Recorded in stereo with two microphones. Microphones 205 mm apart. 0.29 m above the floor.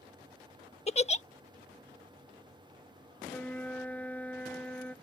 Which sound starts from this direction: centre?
A flute, at 3.3 s.